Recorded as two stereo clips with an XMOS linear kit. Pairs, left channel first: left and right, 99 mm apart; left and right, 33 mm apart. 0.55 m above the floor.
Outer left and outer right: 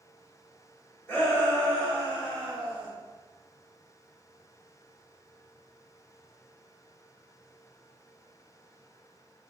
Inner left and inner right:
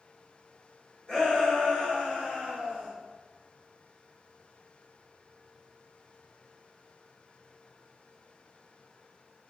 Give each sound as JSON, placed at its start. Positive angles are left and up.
{"t": 1.1, "sound": "a shout", "side_deg": 20, "distance_m": 1.4}